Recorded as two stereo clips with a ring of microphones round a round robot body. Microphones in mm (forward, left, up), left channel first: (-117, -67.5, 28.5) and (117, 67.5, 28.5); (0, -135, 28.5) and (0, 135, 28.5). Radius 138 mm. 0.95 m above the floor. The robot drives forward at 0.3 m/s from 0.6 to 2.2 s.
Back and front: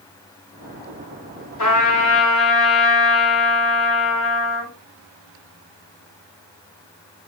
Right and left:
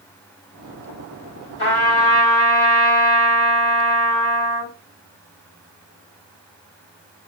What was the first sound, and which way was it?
A trumpet, 140° right.